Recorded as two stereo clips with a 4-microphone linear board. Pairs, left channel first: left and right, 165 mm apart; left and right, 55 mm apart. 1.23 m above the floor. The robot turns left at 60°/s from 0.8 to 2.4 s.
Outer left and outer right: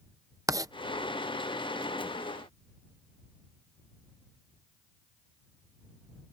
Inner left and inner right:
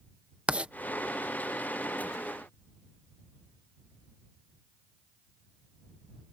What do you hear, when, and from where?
0.5 s writing: 20° right (ahead or behind)